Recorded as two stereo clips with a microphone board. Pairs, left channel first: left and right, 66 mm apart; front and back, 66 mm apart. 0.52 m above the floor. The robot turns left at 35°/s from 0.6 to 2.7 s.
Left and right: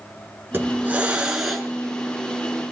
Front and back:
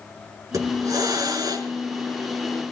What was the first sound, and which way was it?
A hiss, 145° right.